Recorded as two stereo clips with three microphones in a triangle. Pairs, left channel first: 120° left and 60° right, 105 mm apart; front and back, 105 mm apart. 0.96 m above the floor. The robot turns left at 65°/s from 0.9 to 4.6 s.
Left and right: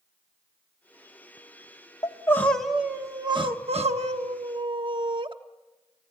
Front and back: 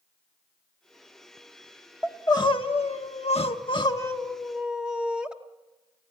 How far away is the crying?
About 1.1 m.